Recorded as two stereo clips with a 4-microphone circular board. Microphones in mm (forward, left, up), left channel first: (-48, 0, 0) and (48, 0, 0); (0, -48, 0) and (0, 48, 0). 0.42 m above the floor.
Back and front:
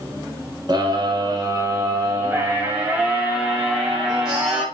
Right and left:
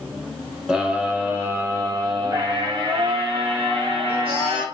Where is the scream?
10° left, 1.4 m; by 4.6 s 85° left, 2.5 m.